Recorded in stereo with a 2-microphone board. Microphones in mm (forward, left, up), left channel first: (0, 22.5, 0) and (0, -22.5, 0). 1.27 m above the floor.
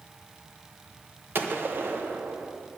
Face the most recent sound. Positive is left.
turn(degrees=-55)  # may be behind; listen again after turning